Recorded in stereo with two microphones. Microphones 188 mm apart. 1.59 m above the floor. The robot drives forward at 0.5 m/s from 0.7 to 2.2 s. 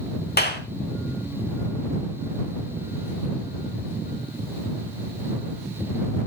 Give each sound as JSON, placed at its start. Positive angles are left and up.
{"t": 0.4, "sound": "a clap", "side_deg": 60, "distance_m": 3.5}